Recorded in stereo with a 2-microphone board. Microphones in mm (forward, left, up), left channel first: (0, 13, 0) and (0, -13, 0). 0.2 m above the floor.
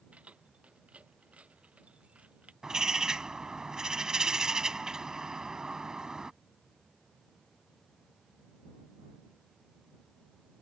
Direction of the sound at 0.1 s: 60° right (ahead or behind).